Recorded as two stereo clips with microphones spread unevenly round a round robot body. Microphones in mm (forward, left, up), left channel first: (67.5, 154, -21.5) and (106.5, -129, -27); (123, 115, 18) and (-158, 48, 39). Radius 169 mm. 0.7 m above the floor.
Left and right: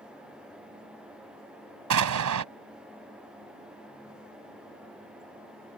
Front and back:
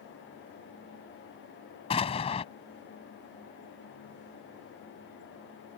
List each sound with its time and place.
1.9 s an explosion: 60° right